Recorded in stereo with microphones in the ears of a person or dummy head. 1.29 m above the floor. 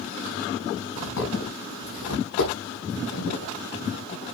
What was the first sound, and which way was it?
Footsteps, 75° left (ahead or behind).